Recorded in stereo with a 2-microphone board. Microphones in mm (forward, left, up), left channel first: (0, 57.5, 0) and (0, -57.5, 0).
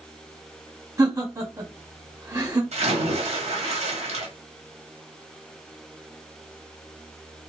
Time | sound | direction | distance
1.0 | laughter | 30° right (ahead or behind) | 1.8 m
2.7 | a splash | 75° right (ahead or behind) | 1.5 m